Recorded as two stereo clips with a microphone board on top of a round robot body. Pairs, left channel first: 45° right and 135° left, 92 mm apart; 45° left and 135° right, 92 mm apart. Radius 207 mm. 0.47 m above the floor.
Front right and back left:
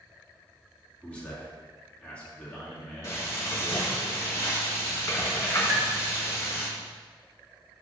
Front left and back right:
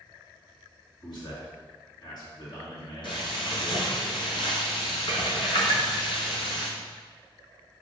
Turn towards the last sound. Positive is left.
turn(degrees=75)